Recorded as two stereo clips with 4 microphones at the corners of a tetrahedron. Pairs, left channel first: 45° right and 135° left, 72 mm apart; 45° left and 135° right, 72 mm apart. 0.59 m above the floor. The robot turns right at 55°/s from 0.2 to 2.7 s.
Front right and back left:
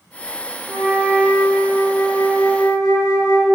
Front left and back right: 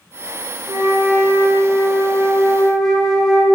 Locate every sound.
0.7 s a flute: 150° right, 1.9 m; by 3.5 s 40° right, 1.9 m